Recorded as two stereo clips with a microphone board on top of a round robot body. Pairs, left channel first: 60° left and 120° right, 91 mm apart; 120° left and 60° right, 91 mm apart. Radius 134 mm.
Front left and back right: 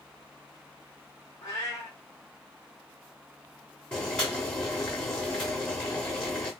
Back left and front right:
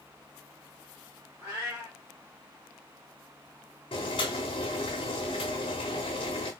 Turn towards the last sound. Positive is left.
turn(degrees=140)